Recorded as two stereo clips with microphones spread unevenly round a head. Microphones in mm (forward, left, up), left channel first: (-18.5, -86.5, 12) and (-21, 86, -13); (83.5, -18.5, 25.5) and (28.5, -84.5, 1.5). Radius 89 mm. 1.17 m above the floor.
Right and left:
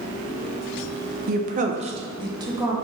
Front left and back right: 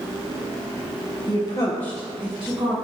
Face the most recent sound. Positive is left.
turn(degrees=160)